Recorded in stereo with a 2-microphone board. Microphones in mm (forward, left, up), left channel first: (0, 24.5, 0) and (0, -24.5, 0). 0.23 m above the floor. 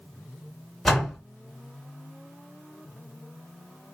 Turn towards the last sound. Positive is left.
turn(degrees=0)  # may be behind; listen again after turning